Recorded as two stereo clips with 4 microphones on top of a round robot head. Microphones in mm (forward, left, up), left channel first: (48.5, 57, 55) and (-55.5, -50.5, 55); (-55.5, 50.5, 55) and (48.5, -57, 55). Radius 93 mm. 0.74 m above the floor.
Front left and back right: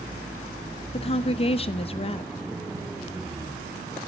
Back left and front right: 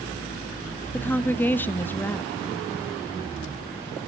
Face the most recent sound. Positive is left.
turn(degrees=65)